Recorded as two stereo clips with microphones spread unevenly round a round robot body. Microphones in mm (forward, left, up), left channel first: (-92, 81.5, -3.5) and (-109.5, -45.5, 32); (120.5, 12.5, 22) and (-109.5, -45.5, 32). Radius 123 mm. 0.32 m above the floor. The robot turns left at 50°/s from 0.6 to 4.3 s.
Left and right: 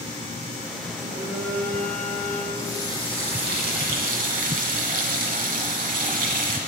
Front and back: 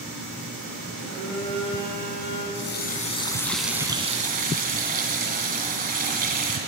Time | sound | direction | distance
1.0 | a phone buzzing | 20° right | 4.5 m
2.5 | a running tap | 25° right | 2 m